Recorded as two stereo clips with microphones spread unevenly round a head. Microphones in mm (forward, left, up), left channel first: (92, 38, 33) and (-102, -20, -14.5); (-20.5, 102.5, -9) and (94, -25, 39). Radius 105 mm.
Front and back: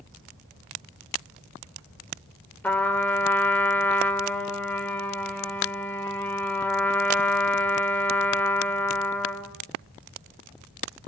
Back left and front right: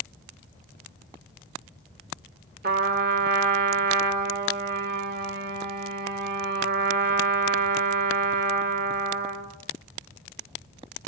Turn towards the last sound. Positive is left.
turn(degrees=-60)